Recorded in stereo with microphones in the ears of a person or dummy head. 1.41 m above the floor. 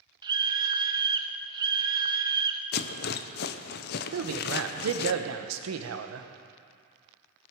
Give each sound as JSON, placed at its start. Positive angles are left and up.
{"t": 0.2, "sound": "a scream", "side_deg": -15, "distance_m": 0.6}
{"t": 2.7, "sound": "a rattle", "side_deg": 60, "distance_m": 0.6}
{"t": 4.1, "sound": "a man speaking", "side_deg": -80, "distance_m": 1.1}